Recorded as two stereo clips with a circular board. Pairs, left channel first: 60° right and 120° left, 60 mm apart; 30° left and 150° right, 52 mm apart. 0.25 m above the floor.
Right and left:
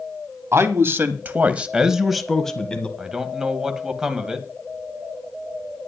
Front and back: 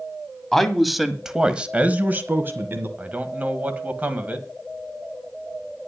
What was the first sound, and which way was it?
A man speaking, 110° left.